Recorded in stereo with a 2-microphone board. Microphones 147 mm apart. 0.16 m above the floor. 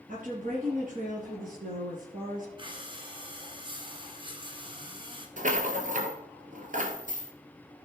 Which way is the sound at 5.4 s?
60° right (ahead or behind).